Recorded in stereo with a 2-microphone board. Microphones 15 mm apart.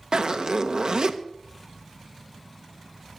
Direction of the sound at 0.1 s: 70° right (ahead or behind).